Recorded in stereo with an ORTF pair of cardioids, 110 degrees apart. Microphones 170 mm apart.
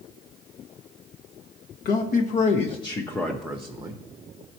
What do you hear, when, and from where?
1.9 s a man speaking: 60° left, 1.1 m; by 4.0 s 25° right, 0.8 m